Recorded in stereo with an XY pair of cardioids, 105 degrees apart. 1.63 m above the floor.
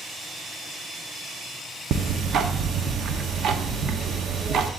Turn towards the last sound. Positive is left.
turn(degrees=-60)